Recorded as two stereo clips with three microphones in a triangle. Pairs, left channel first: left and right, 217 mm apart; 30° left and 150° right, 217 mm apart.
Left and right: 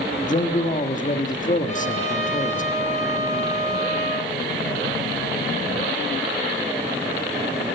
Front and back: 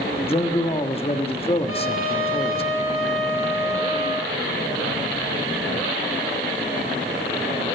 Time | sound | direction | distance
0.3 | a man speaking | 75° left | 1.4 m
1.7 | a trumpet | 35° left | 5.5 m